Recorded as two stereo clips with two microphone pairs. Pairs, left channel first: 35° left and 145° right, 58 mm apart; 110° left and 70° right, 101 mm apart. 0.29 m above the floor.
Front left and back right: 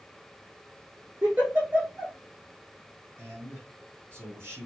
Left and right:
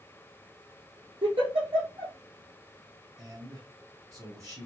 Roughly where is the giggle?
Right.